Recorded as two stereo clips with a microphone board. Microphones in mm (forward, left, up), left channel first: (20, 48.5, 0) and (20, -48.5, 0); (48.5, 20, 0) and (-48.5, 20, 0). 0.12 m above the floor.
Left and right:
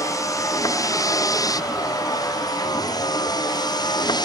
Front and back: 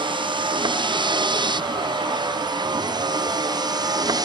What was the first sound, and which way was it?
A vehicle, 145° left.